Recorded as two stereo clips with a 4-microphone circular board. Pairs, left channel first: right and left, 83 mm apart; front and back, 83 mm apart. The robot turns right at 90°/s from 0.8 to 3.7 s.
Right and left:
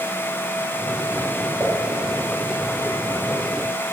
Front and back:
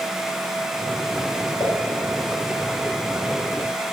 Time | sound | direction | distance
1.6 | a pop | 20° left | 5.5 m